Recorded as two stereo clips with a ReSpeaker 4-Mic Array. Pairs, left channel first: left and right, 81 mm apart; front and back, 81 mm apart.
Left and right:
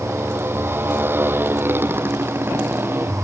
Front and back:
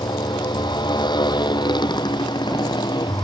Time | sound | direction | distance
0.0 | a motorcycle | 25° right | ?